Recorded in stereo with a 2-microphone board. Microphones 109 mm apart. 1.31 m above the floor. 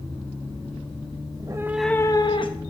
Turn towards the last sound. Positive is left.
turn(degrees=55)  # may be behind; listen again after turning